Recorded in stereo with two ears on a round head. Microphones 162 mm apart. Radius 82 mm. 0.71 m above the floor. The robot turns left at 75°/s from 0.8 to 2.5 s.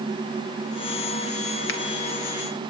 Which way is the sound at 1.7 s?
65° left (ahead or behind).